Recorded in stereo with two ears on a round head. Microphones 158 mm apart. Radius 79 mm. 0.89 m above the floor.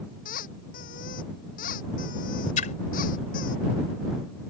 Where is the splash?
45° left (ahead or behind).